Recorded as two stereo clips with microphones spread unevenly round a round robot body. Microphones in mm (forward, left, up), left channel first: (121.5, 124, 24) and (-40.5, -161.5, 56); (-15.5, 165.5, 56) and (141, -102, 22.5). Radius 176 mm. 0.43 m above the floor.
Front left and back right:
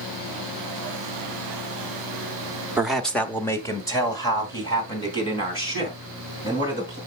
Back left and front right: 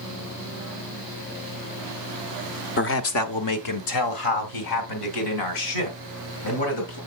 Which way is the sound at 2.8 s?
145° left.